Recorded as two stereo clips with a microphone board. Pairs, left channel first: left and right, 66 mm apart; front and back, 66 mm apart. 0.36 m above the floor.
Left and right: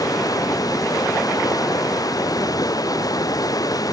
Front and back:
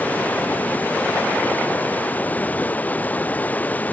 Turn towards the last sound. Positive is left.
turn(degrees=65)